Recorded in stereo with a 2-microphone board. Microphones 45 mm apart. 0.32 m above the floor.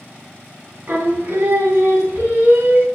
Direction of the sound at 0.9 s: 40° right (ahead or behind).